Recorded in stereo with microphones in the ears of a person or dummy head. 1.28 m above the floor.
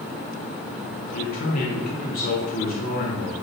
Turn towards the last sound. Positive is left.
turn(degrees=50)  # may be behind; listen again after turning